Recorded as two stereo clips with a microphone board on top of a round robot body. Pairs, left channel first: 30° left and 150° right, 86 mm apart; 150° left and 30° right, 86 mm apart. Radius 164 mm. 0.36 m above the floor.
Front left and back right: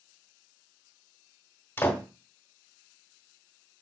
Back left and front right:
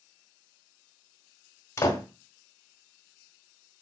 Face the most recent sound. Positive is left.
turn(degrees=95)